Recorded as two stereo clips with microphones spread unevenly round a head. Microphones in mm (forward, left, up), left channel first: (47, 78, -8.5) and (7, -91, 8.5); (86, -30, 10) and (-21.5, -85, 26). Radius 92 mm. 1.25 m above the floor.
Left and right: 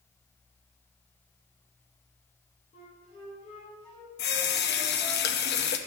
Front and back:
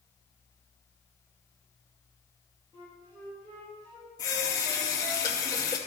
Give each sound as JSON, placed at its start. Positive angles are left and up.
{"t": 2.7, "sound": "a flute", "azimuth_deg": 140, "distance_m": 4.0}
{"t": 4.2, "sound": "a running tap", "azimuth_deg": 95, "distance_m": 0.7}